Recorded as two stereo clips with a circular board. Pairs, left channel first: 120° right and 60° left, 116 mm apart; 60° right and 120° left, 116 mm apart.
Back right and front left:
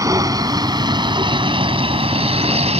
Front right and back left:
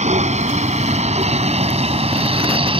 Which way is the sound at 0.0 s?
120° left.